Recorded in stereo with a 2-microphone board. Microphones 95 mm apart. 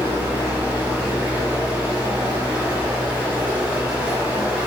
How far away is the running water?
About 1.1 m.